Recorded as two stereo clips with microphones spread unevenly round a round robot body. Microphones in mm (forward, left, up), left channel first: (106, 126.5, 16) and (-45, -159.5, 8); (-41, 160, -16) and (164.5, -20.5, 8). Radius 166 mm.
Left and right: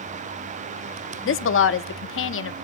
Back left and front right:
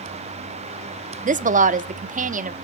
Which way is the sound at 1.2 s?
20° left.